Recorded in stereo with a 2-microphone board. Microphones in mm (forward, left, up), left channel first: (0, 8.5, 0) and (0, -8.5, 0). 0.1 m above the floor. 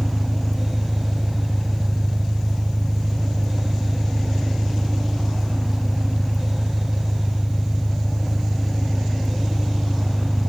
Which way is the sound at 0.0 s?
45° right (ahead or behind).